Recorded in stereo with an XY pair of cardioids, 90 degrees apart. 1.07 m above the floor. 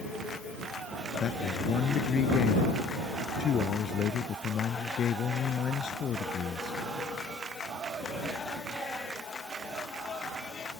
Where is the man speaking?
65° left.